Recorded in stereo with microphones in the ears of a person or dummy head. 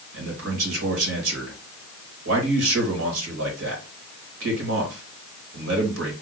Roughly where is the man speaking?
Right.